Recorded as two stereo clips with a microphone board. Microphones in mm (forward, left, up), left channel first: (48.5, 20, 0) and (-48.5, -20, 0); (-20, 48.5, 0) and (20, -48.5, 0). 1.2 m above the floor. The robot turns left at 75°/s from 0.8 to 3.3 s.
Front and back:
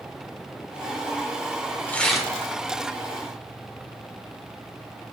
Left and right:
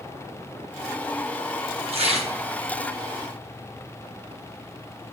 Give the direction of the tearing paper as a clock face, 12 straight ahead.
2 o'clock.